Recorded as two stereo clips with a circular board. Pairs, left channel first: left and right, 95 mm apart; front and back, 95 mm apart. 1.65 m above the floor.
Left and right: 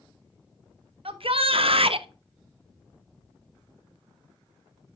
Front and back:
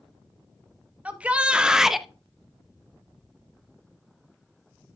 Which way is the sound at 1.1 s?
105° right.